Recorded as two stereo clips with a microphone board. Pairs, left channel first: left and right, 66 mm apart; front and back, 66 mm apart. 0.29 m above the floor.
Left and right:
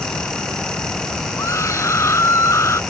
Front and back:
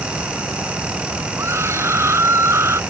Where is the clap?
No clap in this recording.